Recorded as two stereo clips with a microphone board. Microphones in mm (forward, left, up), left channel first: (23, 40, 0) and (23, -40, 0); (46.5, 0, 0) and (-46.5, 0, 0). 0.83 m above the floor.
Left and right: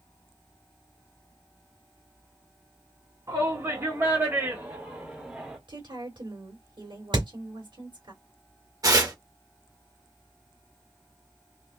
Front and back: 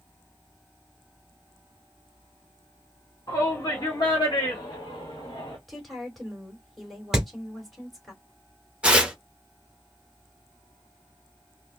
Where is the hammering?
95° right, 2.5 m.